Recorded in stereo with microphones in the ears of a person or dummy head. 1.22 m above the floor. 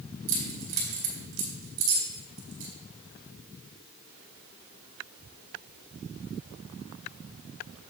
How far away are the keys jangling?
About 2 m.